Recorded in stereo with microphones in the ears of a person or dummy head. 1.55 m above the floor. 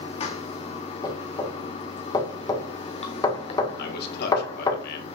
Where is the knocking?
20° left (ahead or behind), 1.6 m.